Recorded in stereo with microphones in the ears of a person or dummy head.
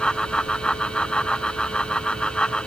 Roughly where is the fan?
Centre.